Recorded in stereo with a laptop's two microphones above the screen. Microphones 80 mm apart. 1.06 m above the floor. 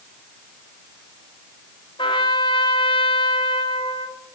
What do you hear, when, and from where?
2.0 s a trumpet: 80° left, 2.5 m